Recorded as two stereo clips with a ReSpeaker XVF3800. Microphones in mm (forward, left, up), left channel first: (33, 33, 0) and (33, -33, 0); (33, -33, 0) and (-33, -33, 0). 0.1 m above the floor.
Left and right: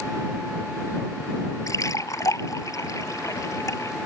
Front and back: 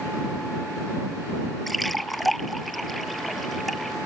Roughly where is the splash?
Left.